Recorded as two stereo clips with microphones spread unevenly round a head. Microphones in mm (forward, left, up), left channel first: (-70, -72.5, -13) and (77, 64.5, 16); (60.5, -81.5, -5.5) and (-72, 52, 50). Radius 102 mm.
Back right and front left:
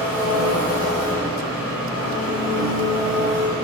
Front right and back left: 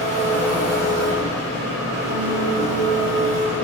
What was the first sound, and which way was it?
An engine running, 155° left.